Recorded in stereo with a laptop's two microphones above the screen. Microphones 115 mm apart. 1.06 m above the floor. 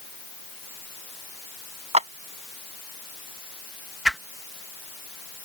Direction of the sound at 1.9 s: 75° right (ahead or behind).